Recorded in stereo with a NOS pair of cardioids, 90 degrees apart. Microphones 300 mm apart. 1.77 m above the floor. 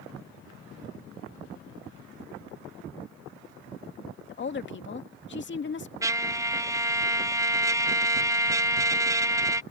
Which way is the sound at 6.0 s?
10° right.